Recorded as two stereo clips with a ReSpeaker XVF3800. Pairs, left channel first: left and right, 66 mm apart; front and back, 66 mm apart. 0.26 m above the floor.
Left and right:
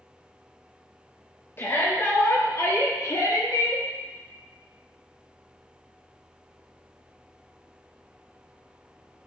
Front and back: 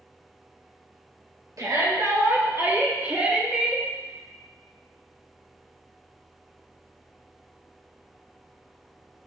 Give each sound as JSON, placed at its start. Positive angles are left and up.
{"t": 1.6, "sound": "a shout", "azimuth_deg": 145, "distance_m": 4.0}